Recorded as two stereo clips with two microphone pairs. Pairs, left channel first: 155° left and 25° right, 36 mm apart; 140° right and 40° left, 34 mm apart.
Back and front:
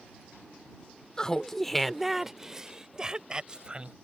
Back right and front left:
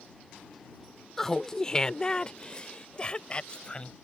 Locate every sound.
1.2 s laughter: 160° left; by 3.9 s 85° right